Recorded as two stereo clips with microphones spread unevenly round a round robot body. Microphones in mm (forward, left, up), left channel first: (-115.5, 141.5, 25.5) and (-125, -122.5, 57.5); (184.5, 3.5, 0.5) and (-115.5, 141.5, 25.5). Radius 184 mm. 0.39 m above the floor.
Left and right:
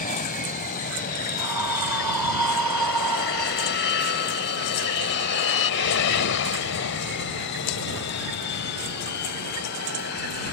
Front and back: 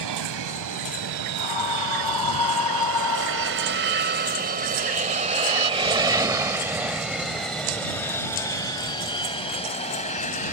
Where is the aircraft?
140° left; by 10.5 s 40° left.